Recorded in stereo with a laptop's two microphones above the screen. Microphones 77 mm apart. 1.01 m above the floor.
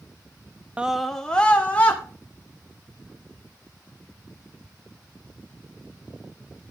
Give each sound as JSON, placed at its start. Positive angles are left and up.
{"t": 0.8, "sound": "a scream", "side_deg": -20, "distance_m": 0.5}